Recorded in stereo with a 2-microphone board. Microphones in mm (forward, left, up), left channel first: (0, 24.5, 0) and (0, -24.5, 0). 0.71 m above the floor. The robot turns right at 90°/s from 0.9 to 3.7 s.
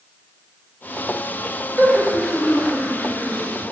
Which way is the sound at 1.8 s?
45° right (ahead or behind).